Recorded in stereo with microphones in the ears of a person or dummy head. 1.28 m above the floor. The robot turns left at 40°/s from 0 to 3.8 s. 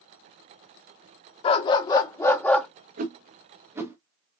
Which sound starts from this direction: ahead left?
A dog barking, at 1.4 s.